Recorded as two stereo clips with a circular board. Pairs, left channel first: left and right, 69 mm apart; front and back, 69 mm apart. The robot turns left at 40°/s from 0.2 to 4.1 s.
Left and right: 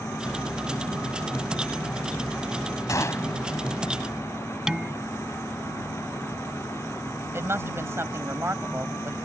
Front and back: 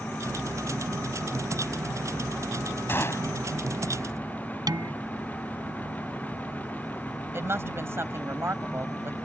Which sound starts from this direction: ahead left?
A gunshot, at 2.9 s.